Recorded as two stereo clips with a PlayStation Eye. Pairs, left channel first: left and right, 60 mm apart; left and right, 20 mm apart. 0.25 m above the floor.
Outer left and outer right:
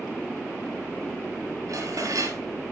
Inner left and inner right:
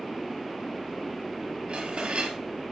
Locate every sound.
1.7 s dishes clattering: 65° right (ahead or behind), 3 m